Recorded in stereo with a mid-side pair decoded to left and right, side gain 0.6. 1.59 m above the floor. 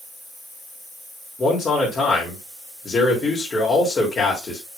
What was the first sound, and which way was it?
A man speaking, 30° left.